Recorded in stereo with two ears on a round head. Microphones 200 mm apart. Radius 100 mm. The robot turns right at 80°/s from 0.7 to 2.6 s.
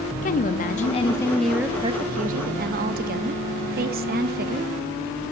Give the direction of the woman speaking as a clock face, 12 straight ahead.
8 o'clock.